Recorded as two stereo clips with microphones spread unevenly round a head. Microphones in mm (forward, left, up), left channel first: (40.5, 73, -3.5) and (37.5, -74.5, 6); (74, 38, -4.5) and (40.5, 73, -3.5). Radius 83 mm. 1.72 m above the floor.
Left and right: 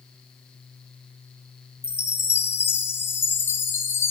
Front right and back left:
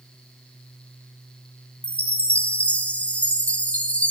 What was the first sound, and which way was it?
A chime, 15° left.